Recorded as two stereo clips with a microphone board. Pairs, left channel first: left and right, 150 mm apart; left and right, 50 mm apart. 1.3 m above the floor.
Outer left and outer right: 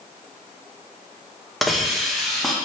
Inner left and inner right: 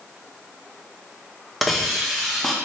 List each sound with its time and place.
1.6 s a hiss: centre (ahead or behind), 0.6 m